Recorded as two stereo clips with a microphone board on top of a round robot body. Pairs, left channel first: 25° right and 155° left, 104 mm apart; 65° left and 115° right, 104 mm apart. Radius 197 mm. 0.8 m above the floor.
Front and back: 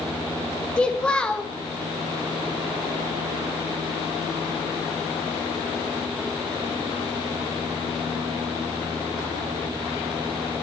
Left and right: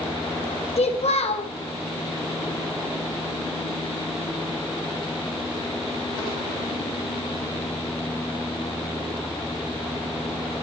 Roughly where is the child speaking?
Ahead left.